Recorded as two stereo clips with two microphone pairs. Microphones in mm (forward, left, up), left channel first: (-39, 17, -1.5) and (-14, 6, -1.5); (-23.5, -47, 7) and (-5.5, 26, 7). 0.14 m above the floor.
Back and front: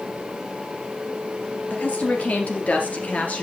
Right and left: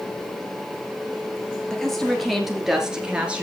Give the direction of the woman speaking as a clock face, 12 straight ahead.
6 o'clock.